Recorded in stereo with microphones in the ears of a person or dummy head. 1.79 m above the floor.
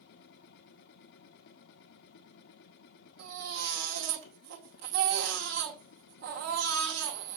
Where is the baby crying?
55° right (ahead or behind), 2 m.